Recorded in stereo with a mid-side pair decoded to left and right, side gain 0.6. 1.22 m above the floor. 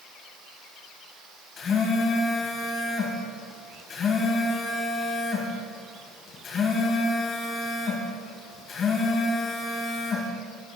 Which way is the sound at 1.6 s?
40° left.